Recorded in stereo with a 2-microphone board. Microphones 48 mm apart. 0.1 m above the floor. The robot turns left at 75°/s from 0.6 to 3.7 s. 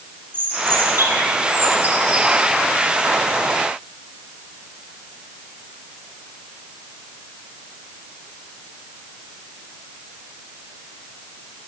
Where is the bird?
50° right, 2.5 m; by 2.3 s 175° right, 2.5 m.